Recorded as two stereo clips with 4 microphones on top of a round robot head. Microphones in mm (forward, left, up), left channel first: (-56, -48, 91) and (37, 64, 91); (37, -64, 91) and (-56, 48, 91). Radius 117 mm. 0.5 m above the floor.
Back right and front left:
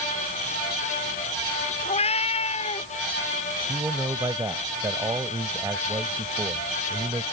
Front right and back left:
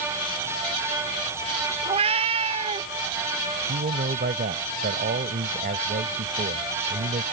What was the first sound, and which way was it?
A cat meowing, straight behind.